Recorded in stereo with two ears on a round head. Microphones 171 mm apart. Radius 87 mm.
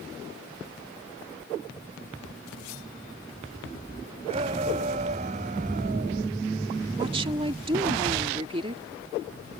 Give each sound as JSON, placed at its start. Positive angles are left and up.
{"t": 4.3, "sound": "a shout", "side_deg": -30}
{"t": 7.0, "sound": "a woman speaking", "side_deg": -25}